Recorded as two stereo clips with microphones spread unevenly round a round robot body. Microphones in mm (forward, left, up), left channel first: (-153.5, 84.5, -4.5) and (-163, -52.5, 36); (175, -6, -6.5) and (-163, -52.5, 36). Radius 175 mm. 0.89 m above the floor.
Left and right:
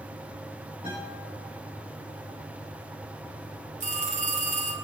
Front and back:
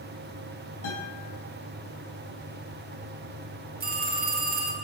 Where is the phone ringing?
110° right, 5 m.